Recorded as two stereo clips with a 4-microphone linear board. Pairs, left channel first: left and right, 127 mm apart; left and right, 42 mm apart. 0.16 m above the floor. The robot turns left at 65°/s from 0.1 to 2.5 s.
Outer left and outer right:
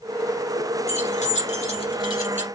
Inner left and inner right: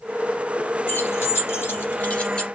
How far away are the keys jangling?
About 2 m.